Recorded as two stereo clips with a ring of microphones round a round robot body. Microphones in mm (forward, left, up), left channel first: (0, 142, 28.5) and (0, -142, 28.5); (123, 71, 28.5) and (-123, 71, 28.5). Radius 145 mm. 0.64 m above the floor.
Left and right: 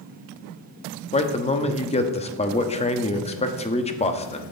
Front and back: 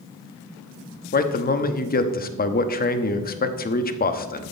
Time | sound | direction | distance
1.1 | a man speaking | 30° left | 1.1 m